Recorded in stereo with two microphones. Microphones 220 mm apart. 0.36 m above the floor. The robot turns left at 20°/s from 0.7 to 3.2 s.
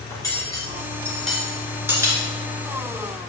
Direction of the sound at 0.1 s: 15° left (ahead or behind).